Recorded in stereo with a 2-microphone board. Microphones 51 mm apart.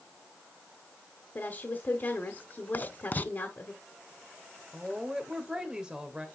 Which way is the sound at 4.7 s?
15° right (ahead or behind).